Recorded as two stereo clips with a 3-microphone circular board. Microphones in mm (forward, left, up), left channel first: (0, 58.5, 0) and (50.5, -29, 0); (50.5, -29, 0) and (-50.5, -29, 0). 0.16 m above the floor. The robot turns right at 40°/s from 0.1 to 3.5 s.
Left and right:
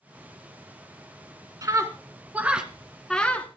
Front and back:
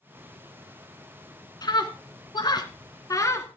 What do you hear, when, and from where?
1.6 s a scream: 20° right, 1.6 m; by 3.5 s 55° left, 1.6 m